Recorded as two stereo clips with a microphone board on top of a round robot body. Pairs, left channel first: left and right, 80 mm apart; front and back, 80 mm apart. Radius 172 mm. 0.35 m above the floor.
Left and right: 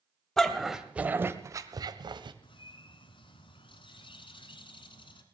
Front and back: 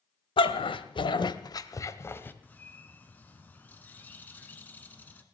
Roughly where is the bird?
Left.